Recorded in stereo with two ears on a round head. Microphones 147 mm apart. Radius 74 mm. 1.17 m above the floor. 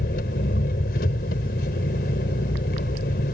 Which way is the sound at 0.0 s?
60° left (ahead or behind).